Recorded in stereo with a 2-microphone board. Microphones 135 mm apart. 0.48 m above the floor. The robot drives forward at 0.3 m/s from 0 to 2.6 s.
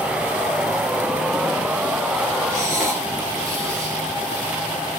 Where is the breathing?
20° right (ahead or behind), 2.5 m.